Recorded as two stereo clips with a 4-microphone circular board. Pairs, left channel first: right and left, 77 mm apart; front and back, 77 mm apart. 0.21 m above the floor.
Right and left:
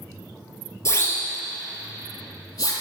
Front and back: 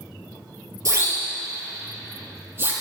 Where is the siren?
140° right, 3.5 m; by 2.7 s 120° right, 5 m.